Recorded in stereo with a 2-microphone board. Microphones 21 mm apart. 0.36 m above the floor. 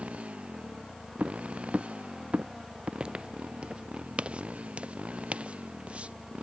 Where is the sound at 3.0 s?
50° right (ahead or behind); by 6.1 s 70° right (ahead or behind).